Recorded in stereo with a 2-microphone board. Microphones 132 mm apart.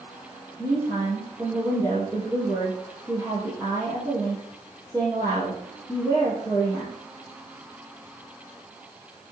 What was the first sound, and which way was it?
A woman speaking, 25° right (ahead or behind).